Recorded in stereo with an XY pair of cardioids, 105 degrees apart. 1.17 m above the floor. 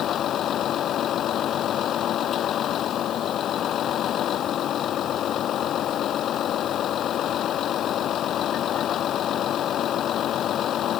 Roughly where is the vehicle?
Ahead left.